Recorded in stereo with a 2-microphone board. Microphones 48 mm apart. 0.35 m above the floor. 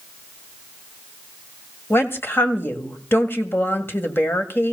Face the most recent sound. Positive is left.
turn(degrees=50)  # may be behind; listen again after turning